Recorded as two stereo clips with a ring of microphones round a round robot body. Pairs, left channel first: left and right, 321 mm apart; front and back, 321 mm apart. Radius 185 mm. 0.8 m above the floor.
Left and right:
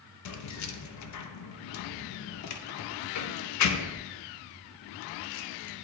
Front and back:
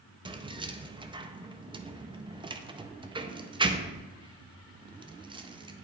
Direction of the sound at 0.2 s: 105° left.